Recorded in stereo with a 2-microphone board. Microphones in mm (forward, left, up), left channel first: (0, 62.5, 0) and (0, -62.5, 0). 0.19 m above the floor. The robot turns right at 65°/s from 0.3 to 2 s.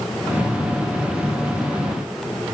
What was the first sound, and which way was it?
Only background noise.